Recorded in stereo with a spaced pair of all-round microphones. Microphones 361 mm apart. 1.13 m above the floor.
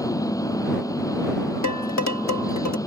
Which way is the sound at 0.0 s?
10° left (ahead or behind).